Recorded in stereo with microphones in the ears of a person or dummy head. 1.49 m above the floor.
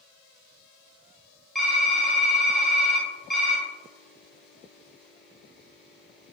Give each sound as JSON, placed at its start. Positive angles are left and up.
{"t": 1.6, "sound": "typing on a keyboard", "side_deg": -5, "distance_m": 0.9}